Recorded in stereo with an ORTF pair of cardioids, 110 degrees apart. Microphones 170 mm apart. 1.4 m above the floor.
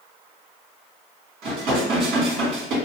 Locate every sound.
1.4 s dishes clattering: 65° right, 1.9 m